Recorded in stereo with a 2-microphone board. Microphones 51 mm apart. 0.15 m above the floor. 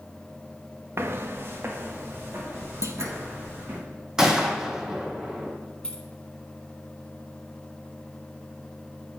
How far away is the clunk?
About 0.6 m.